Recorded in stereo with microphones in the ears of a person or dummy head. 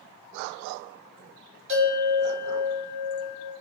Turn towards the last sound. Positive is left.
turn(degrees=-45)  # may be behind; listen again after turning